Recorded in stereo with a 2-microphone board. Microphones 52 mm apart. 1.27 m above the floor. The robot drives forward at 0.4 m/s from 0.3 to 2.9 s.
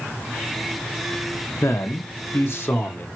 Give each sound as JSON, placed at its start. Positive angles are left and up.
{"t": 1.6, "sound": "a man speaking", "side_deg": 65, "distance_m": 0.7}